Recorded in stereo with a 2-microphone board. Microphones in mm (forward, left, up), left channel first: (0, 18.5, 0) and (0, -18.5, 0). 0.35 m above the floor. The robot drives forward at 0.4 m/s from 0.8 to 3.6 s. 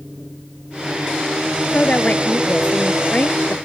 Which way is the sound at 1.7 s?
45° left (ahead or behind).